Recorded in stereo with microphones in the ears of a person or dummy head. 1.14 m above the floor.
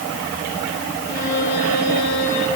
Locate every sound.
1.1 s a violin: 55° left (ahead or behind), 10 m